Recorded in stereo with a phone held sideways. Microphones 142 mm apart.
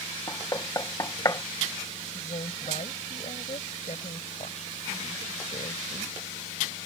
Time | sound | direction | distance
0.3 | knocking | 30° left (ahead or behind) | ?
2.0 | a woman speaking | 55° left (ahead or behind) | ?